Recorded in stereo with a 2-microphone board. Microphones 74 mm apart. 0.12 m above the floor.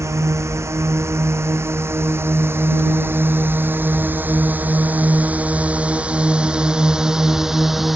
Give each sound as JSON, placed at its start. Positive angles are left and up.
{"t": 0.0, "sound": "a drone", "side_deg": -40}